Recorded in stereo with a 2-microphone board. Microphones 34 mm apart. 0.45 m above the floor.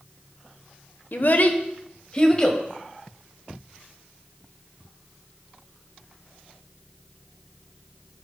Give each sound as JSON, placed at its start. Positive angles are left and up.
{"t": 1.1, "sound": "a child speaking", "side_deg": 60, "distance_m": 0.8}